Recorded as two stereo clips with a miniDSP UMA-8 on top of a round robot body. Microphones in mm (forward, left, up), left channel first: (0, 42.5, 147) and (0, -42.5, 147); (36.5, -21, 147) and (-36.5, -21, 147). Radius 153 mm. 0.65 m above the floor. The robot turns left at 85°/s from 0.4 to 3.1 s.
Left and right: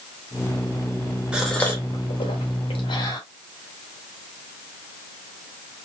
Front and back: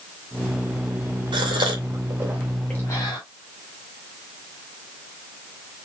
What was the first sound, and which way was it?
A gasp, 170° right.